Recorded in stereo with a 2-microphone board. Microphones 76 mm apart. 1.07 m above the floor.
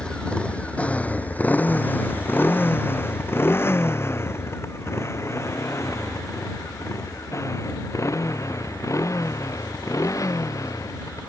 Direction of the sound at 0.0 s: 10° left (ahead or behind).